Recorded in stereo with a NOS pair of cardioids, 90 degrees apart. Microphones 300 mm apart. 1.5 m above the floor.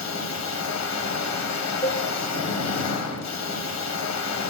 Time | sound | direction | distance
0.0 | a machine running | 65° left | 1.6 m
1.8 | dishes clattering | 10° left | 1.6 m